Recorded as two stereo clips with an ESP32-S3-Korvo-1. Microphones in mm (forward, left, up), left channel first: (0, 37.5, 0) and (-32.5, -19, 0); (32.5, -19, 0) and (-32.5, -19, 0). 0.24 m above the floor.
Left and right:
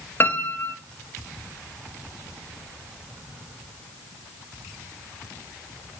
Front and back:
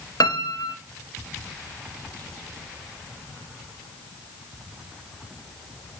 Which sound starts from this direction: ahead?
A piano, at 0.2 s.